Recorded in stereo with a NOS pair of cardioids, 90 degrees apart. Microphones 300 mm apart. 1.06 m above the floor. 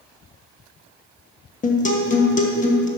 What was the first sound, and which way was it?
A guitar, 25° left.